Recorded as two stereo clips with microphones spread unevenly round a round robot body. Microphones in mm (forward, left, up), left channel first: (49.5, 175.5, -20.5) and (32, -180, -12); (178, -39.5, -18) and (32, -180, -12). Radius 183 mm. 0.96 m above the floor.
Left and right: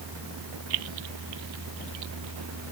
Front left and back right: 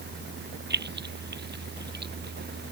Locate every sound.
0.7 s keys jangling: 100° right